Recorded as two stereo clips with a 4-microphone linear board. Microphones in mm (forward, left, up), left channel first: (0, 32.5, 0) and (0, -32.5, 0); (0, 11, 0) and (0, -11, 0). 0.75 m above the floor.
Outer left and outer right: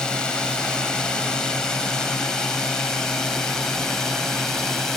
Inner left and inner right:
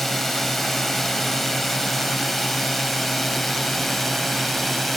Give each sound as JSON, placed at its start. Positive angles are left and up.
{"t": 0.0, "sound": "a drone", "side_deg": 10}